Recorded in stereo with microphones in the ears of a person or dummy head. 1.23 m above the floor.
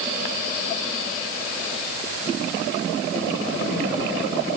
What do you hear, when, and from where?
Only background noise.